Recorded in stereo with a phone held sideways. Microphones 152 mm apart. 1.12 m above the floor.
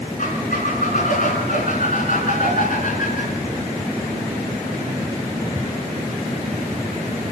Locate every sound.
0.2 s a squeak: 60° left (ahead or behind), 5.5 m